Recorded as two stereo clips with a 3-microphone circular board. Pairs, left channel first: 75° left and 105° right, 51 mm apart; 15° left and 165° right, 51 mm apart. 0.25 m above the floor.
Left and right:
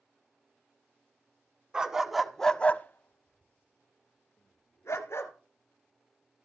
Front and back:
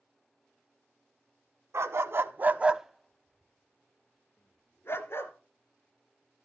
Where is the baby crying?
No baby crying in this recording.